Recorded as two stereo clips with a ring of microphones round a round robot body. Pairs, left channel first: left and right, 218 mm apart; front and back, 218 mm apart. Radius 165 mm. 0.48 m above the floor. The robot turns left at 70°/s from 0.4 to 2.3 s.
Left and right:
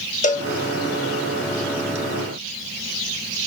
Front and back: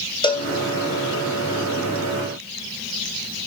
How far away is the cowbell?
About 0.7 m.